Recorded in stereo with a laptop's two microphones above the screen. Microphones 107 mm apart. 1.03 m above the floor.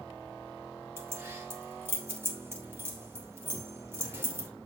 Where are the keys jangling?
20° right (ahead or behind), 2.5 m.